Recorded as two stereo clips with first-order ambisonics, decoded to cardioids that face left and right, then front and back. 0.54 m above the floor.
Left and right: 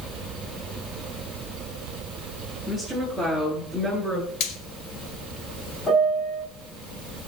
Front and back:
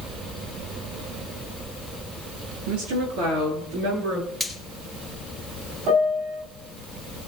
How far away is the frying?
About 1.7 m.